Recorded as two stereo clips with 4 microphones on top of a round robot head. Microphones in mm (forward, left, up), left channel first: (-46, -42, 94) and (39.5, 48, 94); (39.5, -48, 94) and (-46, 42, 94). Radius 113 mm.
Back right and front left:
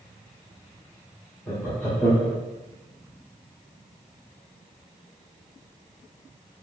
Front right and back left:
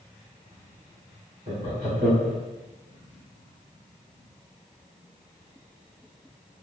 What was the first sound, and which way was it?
Laughter, 150° left.